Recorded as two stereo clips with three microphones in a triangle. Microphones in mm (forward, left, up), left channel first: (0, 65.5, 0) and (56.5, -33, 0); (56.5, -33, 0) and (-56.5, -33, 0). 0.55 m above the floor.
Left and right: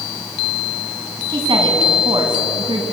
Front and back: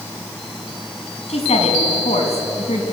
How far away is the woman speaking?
About 5 m.